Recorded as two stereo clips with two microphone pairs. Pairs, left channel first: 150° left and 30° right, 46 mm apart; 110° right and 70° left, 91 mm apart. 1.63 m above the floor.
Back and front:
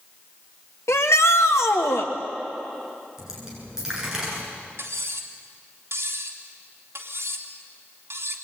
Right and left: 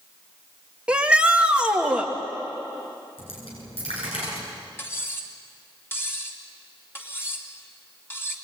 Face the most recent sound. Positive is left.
turn(degrees=-45)